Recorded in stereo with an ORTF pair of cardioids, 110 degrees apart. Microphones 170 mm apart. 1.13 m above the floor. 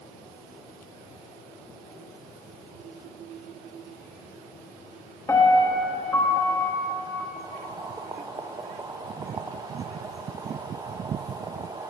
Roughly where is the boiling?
Ahead.